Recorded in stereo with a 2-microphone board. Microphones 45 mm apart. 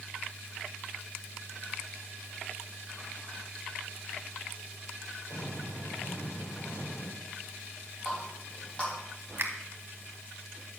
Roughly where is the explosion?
Left.